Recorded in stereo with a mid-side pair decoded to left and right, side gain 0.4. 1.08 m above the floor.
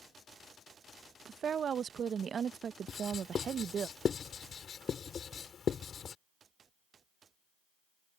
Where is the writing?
55° left.